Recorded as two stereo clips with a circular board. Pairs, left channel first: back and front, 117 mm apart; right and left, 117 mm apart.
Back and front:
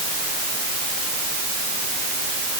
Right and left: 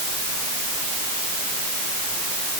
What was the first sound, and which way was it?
Only background noise.